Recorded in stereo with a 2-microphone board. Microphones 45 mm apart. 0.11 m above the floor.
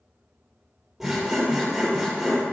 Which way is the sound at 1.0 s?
5° right (ahead or behind).